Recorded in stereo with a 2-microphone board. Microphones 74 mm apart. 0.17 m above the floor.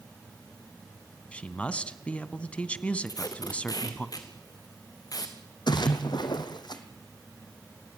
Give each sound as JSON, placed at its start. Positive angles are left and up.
{"t": 1.3, "sound": "a man speaking", "side_deg": 15, "distance_m": 1.0}
{"t": 3.1, "sound": "tape being pulled", "side_deg": 55, "distance_m": 2.5}
{"t": 5.7, "sound": "a splash", "side_deg": 75, "distance_m": 2.0}